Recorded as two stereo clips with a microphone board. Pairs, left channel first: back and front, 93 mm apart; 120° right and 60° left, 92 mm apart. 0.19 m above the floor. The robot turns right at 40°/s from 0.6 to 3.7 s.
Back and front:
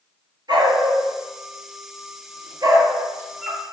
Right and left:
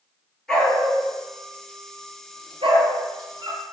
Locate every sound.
0.5 s a dog barking: 35° right, 1.5 m; by 3.6 s 85° left, 1.5 m